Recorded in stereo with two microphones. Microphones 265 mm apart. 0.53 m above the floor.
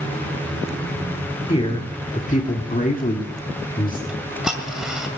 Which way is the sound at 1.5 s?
20° left (ahead or behind).